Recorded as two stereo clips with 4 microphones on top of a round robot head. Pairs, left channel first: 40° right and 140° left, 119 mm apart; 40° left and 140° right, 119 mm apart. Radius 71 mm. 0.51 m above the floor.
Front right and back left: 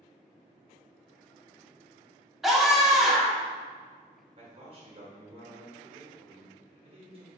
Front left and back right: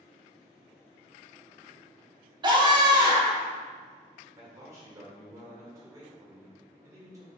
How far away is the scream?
About 1.2 m.